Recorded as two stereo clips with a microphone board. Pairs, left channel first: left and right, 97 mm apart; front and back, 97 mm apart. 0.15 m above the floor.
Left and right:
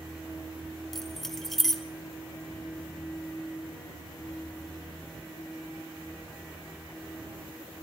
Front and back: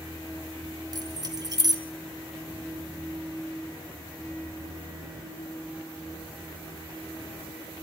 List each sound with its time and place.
0.9 s keys jangling: 175° left, 1.3 m